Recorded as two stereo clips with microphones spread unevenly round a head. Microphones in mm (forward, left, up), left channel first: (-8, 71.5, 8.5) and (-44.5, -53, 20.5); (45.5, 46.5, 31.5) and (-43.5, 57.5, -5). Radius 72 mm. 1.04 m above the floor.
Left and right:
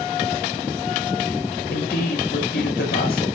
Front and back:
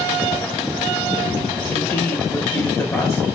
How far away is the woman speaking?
About 5.5 m.